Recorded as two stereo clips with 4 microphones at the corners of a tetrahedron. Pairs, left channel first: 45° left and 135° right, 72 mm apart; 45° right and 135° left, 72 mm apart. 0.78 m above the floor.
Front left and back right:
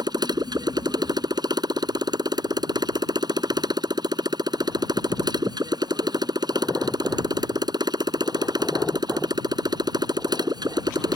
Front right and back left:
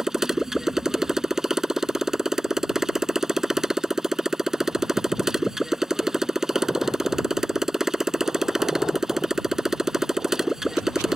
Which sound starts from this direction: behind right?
A motorcycle, at 0.0 s.